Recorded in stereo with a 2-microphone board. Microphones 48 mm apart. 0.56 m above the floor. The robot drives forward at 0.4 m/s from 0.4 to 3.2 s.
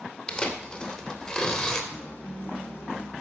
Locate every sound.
0.3 s tearing paper: 20° left (ahead or behind), 2 m; by 1.8 s 15° left (ahead or behind), 2.5 m
1.9 s a guitar: 45° left (ahead or behind), 3 m; by 3.1 s 55° left (ahead or behind), 2.5 m